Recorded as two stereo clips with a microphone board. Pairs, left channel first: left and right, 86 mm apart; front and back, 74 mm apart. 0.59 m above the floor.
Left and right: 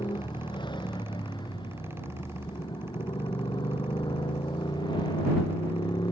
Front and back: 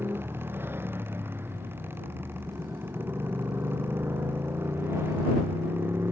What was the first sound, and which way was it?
A motorcycle, 120° left.